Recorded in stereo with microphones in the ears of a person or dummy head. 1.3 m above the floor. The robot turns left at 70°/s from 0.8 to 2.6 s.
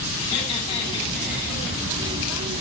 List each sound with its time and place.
0.2 s laughter: 30° left, 9.5 m; by 1.6 s 25° right, 9.5 m